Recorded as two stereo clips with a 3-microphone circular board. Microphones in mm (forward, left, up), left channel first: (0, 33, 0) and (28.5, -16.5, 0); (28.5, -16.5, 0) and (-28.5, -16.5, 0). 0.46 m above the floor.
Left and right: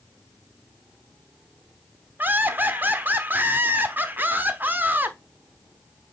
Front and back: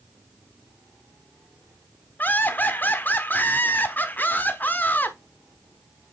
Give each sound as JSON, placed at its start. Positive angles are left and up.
{"t": 2.2, "sound": "laughter", "azimuth_deg": -30, "distance_m": 1.0}